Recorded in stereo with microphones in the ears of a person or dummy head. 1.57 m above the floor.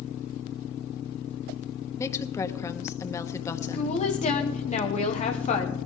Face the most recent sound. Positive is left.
turn(degrees=35)  # may be behind; listen again after turning